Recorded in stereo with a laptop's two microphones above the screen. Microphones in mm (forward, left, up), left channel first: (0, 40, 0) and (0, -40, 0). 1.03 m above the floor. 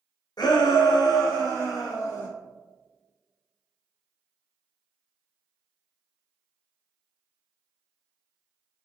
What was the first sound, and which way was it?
A shout, 60° left (ahead or behind).